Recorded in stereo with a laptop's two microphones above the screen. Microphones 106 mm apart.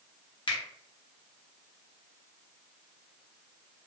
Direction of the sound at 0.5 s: 45° left (ahead or behind).